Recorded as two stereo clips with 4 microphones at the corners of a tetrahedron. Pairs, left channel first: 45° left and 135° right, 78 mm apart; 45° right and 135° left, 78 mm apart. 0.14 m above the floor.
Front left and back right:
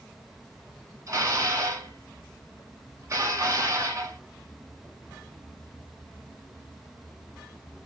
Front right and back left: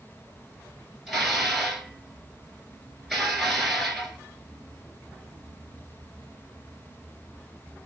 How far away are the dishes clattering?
About 1.0 m.